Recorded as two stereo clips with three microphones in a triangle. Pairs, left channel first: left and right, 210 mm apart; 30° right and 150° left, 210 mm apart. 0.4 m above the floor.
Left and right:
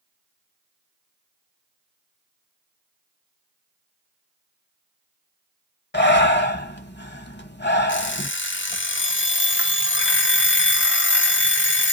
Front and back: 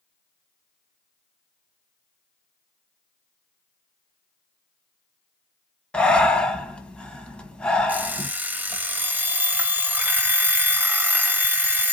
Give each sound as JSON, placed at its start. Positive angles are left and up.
{"t": 5.9, "sound": "breathing", "azimuth_deg": 55, "distance_m": 1.0}
{"t": 7.9, "sound": "an alarm clock", "azimuth_deg": 70, "distance_m": 0.6}